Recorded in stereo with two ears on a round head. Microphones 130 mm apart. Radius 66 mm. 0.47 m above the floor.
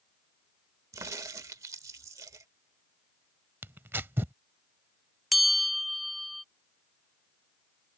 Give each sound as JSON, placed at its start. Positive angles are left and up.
{"t": 0.9, "sound": "a crack", "side_deg": -20}
{"t": 3.6, "sound": "tearing paper", "side_deg": -15}
{"t": 5.3, "sound": "a bell", "side_deg": 0}